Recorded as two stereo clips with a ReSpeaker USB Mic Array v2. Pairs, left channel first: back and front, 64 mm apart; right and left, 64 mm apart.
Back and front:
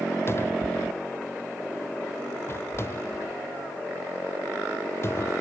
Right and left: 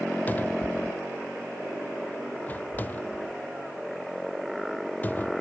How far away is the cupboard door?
About 0.7 m.